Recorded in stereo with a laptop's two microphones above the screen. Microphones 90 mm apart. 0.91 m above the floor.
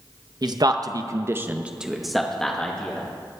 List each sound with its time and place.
0.4 s a man speaking: 50° right (ahead or behind), 0.7 m; by 3.1 s 15° left (ahead or behind), 1.4 m